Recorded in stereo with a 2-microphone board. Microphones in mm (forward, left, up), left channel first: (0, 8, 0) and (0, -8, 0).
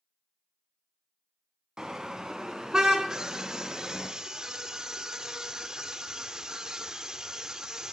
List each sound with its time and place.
1.8 s a car horn: 45° right (ahead or behind), 3 m
3.1 s a scream: 45° right (ahead or behind), 1.9 m